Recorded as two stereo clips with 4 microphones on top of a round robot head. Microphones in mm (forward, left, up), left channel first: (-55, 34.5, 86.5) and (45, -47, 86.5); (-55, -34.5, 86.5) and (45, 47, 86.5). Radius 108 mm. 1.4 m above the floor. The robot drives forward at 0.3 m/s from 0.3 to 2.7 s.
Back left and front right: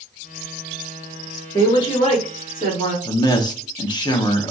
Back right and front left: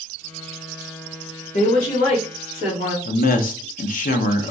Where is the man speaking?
160° right, 0.8 m.